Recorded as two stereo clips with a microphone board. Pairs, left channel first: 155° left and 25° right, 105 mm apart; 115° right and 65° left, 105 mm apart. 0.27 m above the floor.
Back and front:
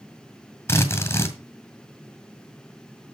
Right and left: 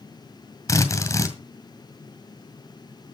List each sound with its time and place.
0.7 s a drill: 155° right, 2.0 m